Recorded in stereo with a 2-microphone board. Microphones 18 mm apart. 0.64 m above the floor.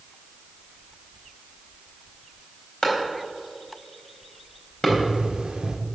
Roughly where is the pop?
Right.